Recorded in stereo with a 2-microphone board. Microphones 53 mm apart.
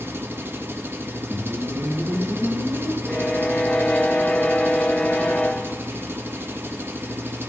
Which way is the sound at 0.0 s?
45° right (ahead or behind).